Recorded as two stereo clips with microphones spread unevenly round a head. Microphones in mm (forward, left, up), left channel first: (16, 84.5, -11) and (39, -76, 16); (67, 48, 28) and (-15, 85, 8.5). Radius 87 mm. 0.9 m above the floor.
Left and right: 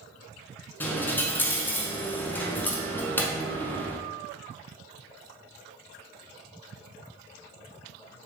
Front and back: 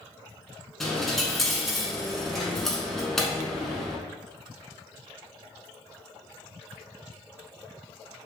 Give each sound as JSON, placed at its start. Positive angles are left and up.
{"t": 0.8, "sound": "a dropped coin", "azimuth_deg": 15, "distance_m": 0.8}